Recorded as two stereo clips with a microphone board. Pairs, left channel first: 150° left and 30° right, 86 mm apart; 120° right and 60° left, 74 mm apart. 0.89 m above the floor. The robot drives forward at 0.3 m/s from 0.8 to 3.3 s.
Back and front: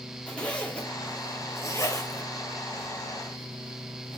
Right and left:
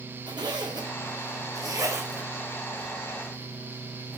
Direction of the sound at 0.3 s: 75° left.